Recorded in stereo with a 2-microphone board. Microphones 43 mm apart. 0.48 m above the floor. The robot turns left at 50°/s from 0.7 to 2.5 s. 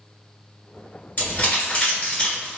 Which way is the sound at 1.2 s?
45° left (ahead or behind).